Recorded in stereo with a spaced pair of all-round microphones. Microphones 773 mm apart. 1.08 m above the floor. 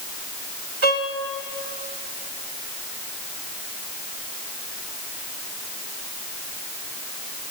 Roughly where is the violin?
Right.